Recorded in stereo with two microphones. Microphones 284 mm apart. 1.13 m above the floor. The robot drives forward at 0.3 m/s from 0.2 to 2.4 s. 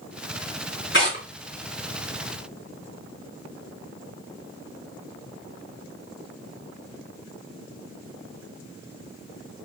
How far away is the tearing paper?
About 3 m.